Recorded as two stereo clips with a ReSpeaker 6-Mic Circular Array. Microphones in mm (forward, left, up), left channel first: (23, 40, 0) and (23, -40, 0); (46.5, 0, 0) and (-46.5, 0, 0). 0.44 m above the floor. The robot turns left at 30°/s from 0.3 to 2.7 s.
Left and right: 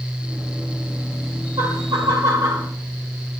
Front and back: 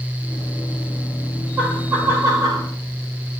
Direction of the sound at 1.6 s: 110° right.